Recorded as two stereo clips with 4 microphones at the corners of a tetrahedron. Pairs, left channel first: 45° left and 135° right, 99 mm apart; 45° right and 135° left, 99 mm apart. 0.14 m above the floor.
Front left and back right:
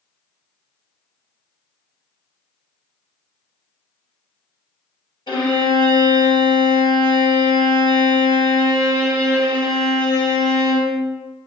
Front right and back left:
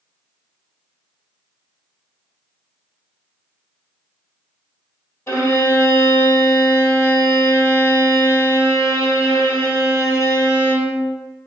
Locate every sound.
5.3 s a violin: 20° left, 1.8 m